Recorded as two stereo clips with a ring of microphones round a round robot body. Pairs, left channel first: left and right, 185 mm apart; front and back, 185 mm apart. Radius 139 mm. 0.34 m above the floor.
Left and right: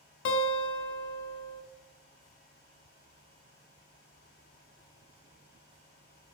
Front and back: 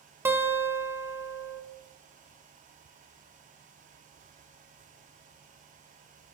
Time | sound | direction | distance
0.2 | a guitar | 100° left | 0.5 m